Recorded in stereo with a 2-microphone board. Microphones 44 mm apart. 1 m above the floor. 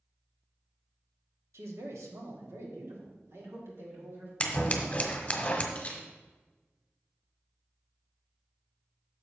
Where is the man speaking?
75° right (ahead or behind), 1.4 m; by 4.3 s 60° right (ahead or behind), 3 m.